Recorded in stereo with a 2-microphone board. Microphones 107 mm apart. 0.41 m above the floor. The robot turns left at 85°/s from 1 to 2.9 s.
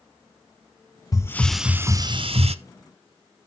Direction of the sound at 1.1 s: 35° left.